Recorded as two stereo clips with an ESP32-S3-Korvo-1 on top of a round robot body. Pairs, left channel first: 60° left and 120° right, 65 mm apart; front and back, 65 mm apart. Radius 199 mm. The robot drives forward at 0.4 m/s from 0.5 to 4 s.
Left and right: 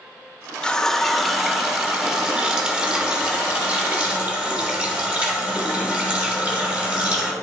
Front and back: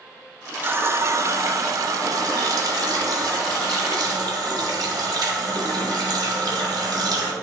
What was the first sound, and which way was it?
A running tap, 130° left.